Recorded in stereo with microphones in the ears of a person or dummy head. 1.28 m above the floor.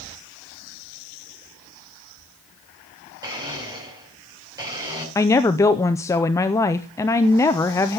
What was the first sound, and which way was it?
A blender, 20° right (ahead or behind).